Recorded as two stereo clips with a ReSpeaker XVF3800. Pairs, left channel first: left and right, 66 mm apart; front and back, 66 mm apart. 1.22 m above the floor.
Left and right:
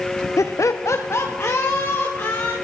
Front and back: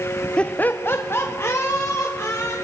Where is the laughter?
70° left, 0.6 m; by 2.5 s 45° left, 2.5 m.